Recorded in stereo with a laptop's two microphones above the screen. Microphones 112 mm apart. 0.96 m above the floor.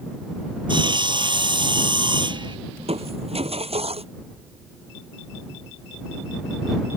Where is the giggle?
I don't hear a giggle.